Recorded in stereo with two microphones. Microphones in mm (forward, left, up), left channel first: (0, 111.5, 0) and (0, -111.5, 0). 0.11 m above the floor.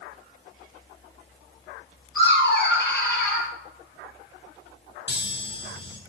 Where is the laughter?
55° left (ahead or behind), 2.5 m; by 3.5 s 45° left (ahead or behind), 2.5 m.